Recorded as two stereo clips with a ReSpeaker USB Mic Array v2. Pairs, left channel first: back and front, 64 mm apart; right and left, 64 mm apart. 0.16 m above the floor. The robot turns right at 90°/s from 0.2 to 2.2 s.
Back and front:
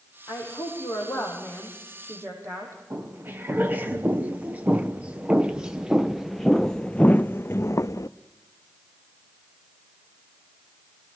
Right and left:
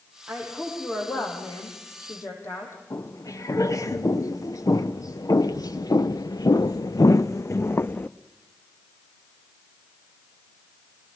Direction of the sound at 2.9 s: 60° right.